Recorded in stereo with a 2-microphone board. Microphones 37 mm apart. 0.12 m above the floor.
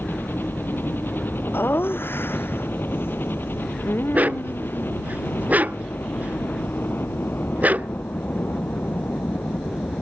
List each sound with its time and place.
0.0 s a helicopter: 65° left (ahead or behind)
1.5 s laughter: 75° left (ahead or behind)
4.1 s a dog barking: 45° right (ahead or behind)